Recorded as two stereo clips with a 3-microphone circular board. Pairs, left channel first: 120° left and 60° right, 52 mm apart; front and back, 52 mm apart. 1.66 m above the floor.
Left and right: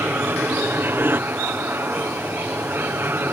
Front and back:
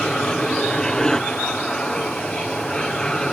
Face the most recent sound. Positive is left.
turn(degrees=-70)